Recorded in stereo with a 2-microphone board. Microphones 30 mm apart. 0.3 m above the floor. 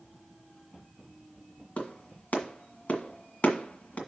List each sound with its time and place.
1.8 s a clap: 50° left (ahead or behind), 1.7 m